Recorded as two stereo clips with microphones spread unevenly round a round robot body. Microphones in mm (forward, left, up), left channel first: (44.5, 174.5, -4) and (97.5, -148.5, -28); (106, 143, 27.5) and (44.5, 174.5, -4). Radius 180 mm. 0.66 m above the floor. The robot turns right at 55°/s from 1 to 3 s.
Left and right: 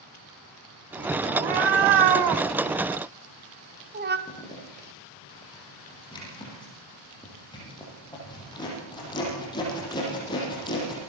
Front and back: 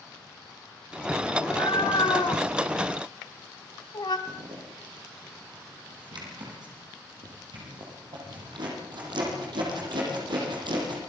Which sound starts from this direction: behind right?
A cat meowing, at 1.3 s.